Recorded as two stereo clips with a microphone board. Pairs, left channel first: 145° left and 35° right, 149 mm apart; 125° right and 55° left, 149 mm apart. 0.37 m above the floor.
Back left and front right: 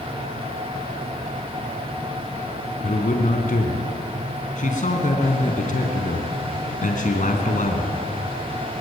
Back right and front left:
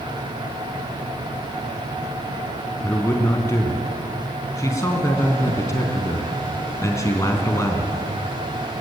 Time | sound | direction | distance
2.8 | a man speaking | 170° left | 3.5 m